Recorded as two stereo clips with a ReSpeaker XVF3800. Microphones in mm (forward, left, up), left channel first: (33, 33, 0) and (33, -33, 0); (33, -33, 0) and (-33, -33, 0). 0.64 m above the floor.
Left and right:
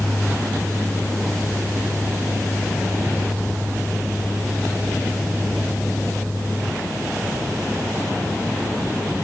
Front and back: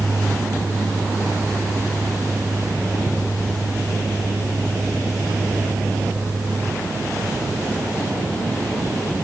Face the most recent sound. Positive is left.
No sound to turn to.